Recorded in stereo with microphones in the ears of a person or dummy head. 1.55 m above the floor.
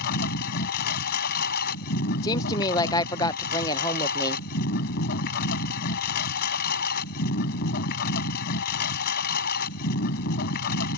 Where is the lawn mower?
45° left (ahead or behind).